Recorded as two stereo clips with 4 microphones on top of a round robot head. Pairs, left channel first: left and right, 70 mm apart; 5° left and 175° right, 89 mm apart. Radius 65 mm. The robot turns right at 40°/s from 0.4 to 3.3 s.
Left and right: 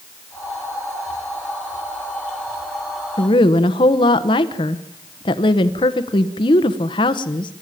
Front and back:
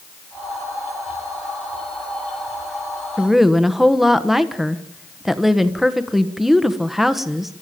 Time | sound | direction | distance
3.2 | a woman speaking | 90° left | 1.2 m